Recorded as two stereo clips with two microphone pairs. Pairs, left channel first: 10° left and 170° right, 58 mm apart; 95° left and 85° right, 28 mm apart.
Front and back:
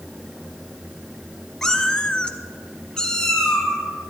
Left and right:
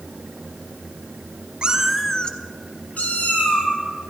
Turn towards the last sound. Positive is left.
turn(degrees=90)